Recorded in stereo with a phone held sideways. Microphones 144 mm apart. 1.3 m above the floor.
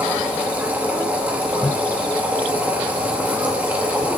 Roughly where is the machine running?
Centre.